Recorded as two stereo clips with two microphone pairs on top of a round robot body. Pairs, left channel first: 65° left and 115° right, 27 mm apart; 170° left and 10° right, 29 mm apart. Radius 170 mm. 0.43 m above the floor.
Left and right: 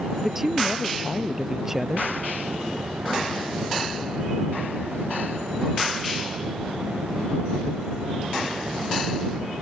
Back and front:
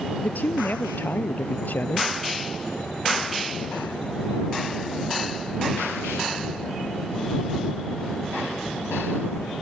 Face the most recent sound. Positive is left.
turn(degrees=165)